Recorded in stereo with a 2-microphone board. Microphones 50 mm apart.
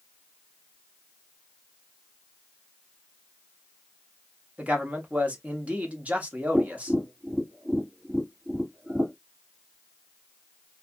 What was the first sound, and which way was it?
A man speaking, 30° right (ahead or behind).